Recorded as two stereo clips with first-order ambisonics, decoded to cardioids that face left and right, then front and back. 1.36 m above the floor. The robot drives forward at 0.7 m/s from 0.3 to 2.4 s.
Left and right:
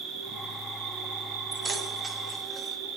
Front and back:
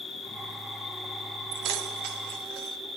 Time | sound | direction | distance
0.0 | an insect | 70° right | 2.5 m
1.5 | keys jangling | 160° right | 0.8 m